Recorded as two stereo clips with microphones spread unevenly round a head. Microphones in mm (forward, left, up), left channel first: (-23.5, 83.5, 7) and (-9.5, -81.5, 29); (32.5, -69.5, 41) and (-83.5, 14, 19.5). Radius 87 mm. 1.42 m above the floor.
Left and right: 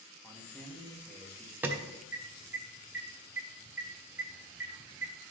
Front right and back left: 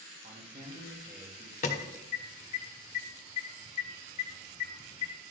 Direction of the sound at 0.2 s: Straight behind.